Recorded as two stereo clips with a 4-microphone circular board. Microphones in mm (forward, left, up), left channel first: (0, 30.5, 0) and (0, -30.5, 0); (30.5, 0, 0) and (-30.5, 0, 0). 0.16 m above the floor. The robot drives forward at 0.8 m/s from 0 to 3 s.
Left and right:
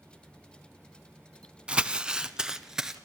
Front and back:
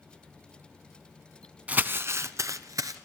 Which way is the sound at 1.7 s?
145° right.